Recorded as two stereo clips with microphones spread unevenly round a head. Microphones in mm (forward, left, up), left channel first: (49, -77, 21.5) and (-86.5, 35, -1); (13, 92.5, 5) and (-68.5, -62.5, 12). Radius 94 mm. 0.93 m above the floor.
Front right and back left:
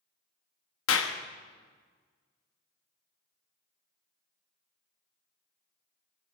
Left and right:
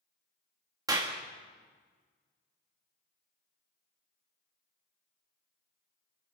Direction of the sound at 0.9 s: 45° right.